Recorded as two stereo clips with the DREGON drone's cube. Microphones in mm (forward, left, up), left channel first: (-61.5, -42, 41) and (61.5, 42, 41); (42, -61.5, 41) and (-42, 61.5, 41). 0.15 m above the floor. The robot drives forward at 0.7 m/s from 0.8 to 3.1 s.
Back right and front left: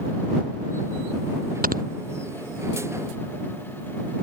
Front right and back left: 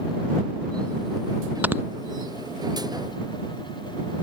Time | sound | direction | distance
1.6 | snoring | 45° left | ?